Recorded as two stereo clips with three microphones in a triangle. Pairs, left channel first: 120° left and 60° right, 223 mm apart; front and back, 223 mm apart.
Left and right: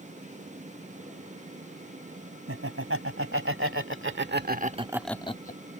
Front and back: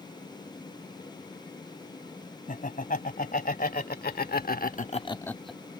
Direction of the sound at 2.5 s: 50° right.